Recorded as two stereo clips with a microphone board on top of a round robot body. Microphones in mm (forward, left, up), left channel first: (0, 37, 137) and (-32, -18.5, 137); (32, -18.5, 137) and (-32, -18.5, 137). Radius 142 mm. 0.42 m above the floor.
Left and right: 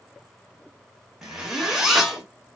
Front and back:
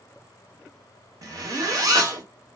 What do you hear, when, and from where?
1.2 s a zipper: 155° left, 1.6 m